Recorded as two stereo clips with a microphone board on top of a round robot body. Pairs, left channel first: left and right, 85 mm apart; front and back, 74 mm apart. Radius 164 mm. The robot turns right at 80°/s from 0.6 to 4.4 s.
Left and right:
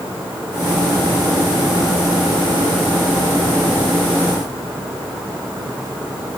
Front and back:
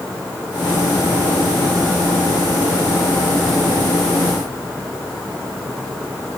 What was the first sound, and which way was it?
Only background noise.